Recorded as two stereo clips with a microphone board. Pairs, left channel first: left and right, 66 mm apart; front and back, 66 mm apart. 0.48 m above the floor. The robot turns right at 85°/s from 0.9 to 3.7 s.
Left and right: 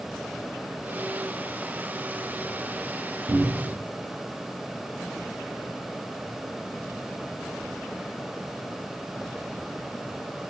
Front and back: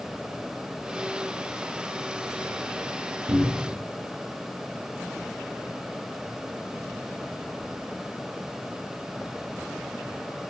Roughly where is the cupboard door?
Behind right.